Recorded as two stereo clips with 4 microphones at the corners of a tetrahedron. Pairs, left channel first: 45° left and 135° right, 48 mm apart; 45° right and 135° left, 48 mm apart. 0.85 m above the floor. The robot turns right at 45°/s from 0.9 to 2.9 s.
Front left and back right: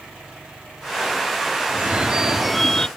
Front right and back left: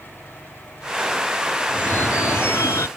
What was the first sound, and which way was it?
A phone ringing, 85° right.